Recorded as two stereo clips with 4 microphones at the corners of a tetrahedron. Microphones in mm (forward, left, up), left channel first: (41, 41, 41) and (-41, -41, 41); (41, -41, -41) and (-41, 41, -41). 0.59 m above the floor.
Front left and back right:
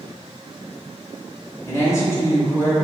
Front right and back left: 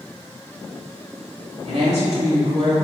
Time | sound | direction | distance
1.6 | a woman speaking | 110° left | 1.9 m